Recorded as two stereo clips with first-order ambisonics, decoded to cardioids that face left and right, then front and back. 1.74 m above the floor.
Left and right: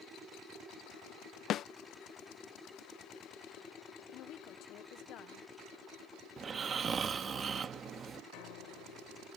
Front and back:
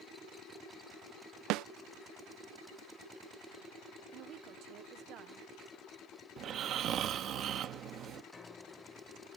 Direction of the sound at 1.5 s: 145° left.